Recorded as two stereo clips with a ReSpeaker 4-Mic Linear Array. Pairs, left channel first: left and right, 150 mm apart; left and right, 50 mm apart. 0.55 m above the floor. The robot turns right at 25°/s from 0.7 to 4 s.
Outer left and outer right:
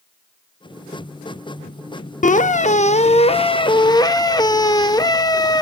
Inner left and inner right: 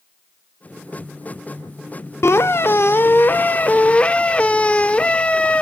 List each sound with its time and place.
2.2 s a squeak: 105° left, 0.5 m; by 5.6 s 150° left, 0.5 m